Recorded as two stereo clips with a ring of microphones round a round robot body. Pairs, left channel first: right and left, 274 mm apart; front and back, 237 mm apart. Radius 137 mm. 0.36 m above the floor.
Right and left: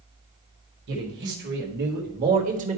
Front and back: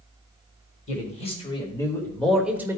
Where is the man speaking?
50° left, 1.8 m; by 2.8 s 120° left, 1.2 m.